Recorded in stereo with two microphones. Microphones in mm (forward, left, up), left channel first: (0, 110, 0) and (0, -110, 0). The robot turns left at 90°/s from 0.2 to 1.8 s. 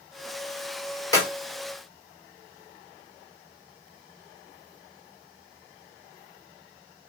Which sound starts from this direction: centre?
A clap, at 1.1 s.